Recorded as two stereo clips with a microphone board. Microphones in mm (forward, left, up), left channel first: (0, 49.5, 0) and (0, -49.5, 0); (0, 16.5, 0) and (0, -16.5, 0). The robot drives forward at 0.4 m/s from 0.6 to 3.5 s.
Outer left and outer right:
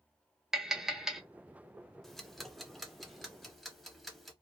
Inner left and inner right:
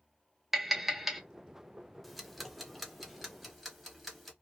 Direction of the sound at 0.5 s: 5° right (ahead or behind).